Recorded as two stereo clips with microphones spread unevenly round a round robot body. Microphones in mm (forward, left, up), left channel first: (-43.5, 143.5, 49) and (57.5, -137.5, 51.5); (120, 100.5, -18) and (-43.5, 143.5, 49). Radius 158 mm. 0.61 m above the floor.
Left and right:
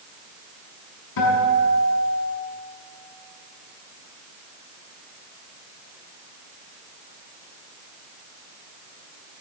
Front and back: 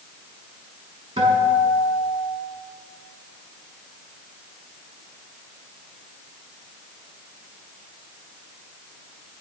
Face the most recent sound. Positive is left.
turn(degrees=110)